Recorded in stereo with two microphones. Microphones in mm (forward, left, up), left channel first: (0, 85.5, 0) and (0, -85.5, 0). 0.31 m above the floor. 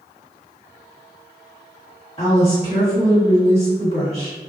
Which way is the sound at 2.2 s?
35° left (ahead or behind).